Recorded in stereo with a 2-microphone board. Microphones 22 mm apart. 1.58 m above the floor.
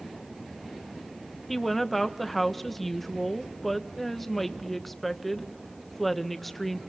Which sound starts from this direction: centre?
A woman speaking, at 1.5 s.